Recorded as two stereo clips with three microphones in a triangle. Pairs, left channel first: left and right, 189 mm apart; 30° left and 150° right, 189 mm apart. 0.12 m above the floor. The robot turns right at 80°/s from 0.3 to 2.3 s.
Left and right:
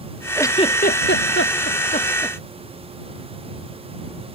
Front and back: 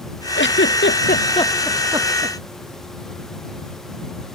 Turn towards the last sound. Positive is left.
turn(degrees=165)